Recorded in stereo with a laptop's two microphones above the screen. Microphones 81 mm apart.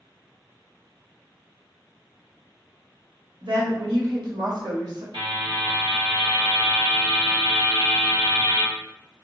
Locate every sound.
3.4 s a woman speaking: 75° right (ahead or behind), 1.6 m; by 5.0 s 55° right (ahead or behind), 0.9 m
5.1 s a buzzer: 80° right, 1.4 m